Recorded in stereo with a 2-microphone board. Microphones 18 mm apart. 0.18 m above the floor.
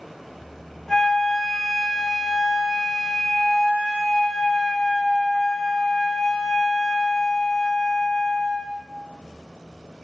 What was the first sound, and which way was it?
A flute, 30° left (ahead or behind).